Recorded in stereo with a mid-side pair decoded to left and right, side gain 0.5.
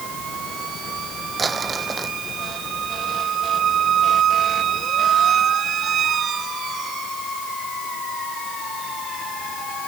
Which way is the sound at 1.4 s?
35° right.